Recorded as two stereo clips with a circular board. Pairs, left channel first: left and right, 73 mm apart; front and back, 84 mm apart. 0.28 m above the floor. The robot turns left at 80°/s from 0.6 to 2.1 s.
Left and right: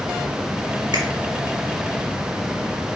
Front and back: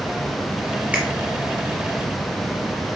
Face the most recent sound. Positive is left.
turn(degrees=160)